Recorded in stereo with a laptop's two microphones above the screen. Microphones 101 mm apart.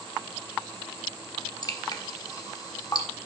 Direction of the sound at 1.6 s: 35° left (ahead or behind).